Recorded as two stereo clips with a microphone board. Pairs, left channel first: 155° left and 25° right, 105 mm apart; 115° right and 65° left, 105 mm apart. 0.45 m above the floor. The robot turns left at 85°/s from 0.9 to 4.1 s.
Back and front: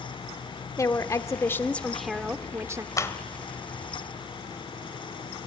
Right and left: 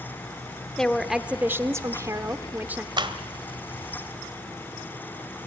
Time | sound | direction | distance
0.8 | a woman speaking | 165° left | 1.0 m
3.0 | a clap | 105° left | 1.5 m